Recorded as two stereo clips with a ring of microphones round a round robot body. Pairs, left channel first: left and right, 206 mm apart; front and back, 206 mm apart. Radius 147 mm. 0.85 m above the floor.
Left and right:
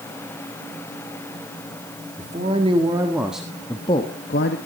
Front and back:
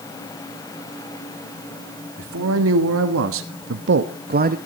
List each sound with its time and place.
2.2 s a man speaking: 155° right, 1.8 m; by 4.6 s 130° left, 1.0 m